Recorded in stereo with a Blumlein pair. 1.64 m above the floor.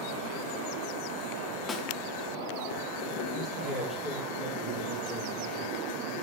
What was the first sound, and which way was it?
A snare drum, 20° left.